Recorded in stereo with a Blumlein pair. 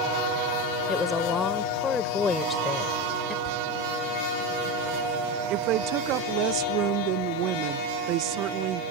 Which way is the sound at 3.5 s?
40° left.